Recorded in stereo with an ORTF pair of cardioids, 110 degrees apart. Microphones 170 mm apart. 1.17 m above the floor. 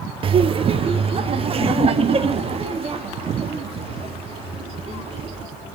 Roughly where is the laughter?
Ahead right.